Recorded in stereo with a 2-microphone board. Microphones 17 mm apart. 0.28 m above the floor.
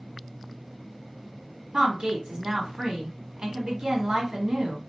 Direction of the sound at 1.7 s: 55° right (ahead or behind).